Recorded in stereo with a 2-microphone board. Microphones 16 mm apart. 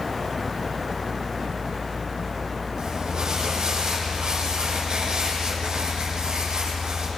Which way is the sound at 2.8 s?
65° right (ahead or behind).